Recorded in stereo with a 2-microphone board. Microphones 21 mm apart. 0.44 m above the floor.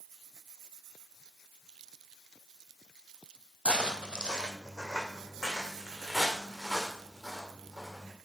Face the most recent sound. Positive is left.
turn(degrees=0)  # may be behind; listen again after turning